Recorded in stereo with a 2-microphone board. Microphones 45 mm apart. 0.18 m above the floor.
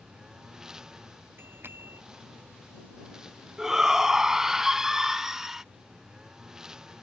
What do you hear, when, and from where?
0.0 s a lawn mower: 10° right (ahead or behind)
1.4 s a bicycle bell: 50° right (ahead or behind)
3.6 s a shout: 10° right (ahead or behind)